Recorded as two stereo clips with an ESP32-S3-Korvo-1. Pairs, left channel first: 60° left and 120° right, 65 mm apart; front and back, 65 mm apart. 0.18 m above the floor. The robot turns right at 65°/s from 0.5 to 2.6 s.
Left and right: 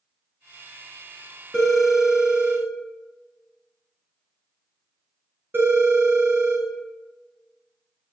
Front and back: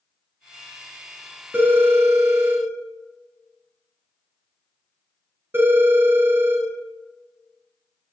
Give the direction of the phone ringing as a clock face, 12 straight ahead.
7 o'clock.